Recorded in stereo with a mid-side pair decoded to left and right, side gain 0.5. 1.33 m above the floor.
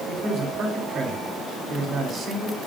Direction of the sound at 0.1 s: 60° right.